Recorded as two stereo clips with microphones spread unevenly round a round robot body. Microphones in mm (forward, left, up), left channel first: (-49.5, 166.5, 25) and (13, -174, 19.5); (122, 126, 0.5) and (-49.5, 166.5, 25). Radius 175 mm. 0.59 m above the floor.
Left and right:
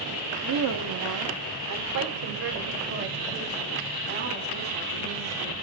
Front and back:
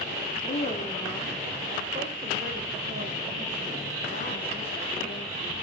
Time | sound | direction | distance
0.4 | a woman speaking | 40° right | 1.1 m